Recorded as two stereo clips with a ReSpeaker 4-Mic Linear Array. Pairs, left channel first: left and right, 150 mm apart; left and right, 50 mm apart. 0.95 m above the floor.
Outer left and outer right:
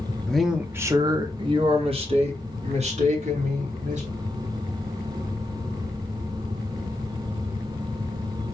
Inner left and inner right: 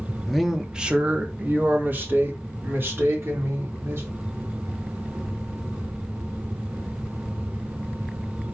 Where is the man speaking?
5° left (ahead or behind), 0.6 m; by 4.1 s 50° right (ahead or behind), 2.5 m.